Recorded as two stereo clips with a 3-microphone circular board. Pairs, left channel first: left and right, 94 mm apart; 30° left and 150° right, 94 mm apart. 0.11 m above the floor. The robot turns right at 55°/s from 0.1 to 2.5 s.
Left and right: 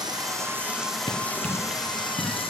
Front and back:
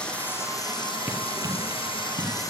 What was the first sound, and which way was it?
Running water, 50° right.